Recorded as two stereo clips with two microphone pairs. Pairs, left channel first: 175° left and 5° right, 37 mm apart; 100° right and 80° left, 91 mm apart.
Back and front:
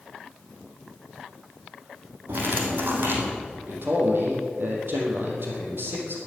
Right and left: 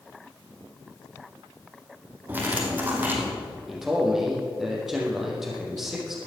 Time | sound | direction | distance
2.3 | cutlery clinking | 10° left | 2.5 m
3.7 | a man speaking | 5° right | 4 m